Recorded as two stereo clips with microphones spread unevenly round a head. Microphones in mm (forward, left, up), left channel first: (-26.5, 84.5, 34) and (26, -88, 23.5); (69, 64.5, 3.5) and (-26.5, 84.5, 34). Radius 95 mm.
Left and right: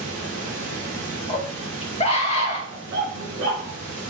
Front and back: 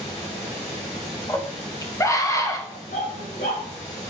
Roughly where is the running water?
Ahead.